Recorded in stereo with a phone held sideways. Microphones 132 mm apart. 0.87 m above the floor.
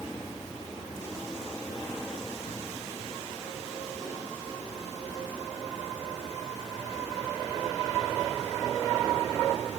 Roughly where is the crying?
No crying in this recording.